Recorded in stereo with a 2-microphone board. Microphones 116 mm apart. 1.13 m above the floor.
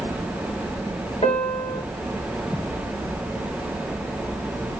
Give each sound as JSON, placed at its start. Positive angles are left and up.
{"t": 1.2, "sound": "a piano", "side_deg": 65, "distance_m": 3.0}